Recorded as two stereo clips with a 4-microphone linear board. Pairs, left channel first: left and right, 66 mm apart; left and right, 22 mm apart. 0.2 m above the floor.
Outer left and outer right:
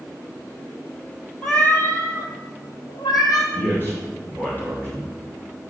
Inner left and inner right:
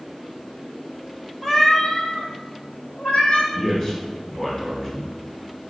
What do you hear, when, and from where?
1.4 s a cat meowing: 15° left (ahead or behind), 1.0 m; by 3.4 s 75° left (ahead or behind), 1.5 m
3.5 s a man speaking: 35° left (ahead or behind), 2.5 m